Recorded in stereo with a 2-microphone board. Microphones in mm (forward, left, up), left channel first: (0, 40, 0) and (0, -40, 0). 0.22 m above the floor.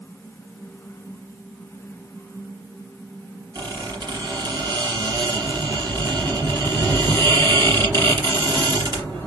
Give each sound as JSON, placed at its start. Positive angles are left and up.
{"t": 3.5, "sound": "a squeak", "side_deg": -65, "distance_m": 2.5}